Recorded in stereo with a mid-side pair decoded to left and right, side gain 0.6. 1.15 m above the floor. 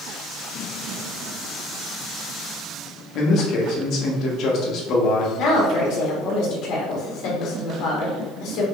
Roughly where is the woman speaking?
Ahead left.